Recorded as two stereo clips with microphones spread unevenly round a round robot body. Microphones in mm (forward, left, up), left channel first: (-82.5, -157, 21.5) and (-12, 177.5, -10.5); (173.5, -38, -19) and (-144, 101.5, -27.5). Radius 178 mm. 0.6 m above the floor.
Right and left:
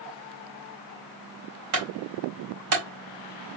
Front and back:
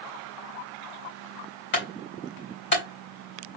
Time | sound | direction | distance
1.7 | a clunk | 35° left | 3 m